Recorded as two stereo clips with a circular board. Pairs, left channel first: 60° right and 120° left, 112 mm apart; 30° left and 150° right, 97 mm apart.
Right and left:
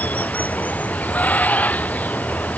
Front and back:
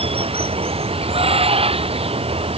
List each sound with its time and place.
0.0 s running water: 135° right